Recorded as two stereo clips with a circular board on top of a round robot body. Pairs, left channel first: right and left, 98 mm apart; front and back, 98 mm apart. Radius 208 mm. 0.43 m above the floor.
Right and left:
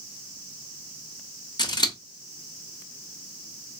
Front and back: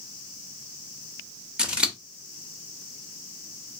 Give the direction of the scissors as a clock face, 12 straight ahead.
3 o'clock.